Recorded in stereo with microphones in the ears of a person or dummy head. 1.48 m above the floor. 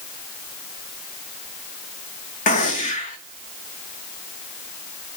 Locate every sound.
2.5 s a gunshot: 35° left (ahead or behind), 1.2 m